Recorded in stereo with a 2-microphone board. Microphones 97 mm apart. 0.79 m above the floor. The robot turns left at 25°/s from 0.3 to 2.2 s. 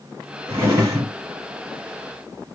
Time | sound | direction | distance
0.5 | a drawer | 25° right (ahead or behind) | 1.5 m